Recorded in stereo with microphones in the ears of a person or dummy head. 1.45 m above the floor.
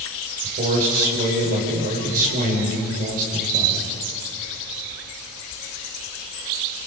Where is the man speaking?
45° right (ahead or behind), 5 m.